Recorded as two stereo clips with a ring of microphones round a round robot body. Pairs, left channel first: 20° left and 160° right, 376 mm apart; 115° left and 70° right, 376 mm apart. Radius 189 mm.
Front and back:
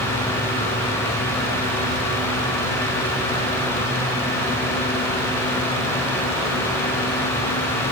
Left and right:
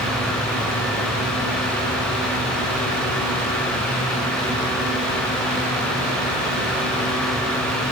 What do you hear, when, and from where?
Only background noise.